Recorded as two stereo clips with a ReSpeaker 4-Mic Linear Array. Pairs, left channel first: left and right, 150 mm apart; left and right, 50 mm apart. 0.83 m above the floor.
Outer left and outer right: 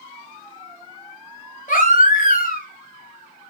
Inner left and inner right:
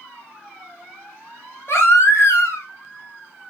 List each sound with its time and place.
1.7 s a baby crying: 60° left (ahead or behind), 1.5 m